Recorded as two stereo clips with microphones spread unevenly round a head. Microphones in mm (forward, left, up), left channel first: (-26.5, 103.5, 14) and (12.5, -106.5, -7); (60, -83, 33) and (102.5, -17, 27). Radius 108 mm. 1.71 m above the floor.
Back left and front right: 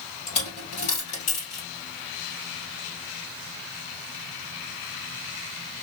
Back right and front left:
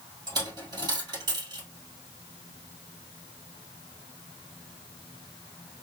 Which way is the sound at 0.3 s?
60° left.